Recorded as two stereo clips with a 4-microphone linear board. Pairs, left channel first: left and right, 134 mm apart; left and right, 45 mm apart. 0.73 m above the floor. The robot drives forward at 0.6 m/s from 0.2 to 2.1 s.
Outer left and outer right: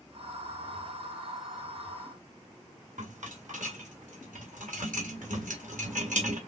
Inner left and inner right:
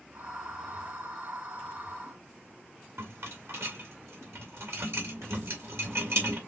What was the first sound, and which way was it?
A rattle, 70° right (ahead or behind).